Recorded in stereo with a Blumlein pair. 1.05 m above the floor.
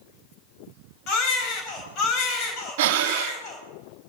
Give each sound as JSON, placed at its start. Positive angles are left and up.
{"t": 1.1, "sound": "a baby crying", "azimuth_deg": 35, "distance_m": 4.0}
{"t": 2.8, "sound": "breathing", "azimuth_deg": -50, "distance_m": 1.0}